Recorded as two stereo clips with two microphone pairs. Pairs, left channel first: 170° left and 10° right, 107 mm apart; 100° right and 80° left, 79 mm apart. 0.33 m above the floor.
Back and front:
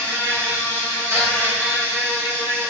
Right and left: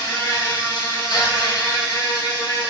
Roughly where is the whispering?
I don't hear whispering.